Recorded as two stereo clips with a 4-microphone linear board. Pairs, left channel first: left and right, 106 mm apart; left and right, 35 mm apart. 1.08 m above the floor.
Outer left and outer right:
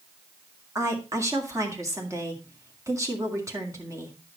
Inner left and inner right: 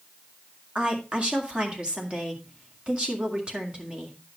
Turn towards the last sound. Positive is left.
turn(degrees=-30)  # may be behind; listen again after turning